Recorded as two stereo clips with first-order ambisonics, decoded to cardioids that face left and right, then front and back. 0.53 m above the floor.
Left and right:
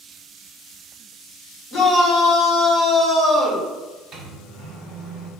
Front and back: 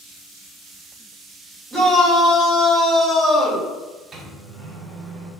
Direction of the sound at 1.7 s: 85° left.